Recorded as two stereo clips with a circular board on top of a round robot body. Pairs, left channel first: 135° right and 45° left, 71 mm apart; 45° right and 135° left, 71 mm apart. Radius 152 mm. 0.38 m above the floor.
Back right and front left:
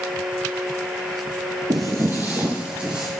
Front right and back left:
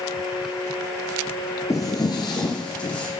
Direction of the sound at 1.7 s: 10° left.